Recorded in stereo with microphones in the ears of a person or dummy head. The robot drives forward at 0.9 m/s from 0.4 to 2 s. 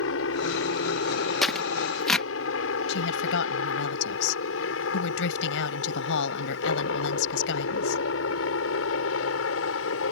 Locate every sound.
0.0 s a helicopter: 70° left (ahead or behind); by 10.1 s 75° left (ahead or behind)
1.4 s tearing paper: 5° left (ahead or behind)
2.9 s a woman speaking: 80° left